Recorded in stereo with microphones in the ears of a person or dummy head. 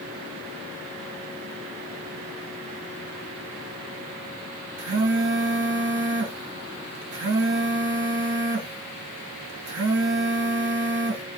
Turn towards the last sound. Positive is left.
turn(degrees=-50)  # may be behind; listen again after turning